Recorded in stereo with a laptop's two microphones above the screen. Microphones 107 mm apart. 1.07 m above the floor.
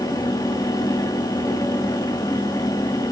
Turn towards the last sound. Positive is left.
turn(degrees=35)  # may be behind; listen again after turning